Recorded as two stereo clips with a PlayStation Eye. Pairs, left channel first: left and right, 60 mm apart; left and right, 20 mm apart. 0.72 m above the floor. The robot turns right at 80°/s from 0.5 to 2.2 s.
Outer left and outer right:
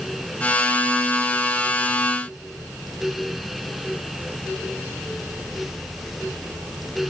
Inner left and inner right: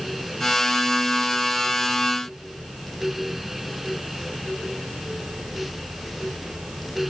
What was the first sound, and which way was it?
Only background noise.